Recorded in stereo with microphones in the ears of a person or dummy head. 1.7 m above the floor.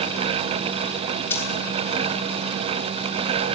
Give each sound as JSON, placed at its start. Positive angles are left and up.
{"t": 1.3, "sound": "a dropped coin", "side_deg": 10, "distance_m": 5.0}